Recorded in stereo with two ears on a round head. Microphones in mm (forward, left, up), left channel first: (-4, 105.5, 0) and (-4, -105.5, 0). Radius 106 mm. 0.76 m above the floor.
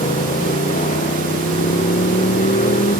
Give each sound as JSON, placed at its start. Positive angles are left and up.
{"t": 0.0, "sound": "a motorcycle", "side_deg": 30}